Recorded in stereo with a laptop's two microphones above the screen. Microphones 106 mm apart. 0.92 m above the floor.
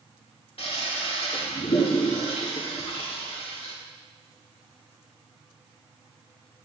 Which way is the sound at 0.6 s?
70° left (ahead or behind).